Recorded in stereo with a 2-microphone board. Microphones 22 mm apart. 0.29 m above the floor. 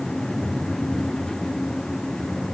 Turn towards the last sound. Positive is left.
No sound to turn to.